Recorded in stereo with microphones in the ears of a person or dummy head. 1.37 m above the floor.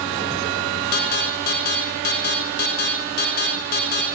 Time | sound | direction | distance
0.9 | an alarm | 45° left (ahead or behind) | 6 m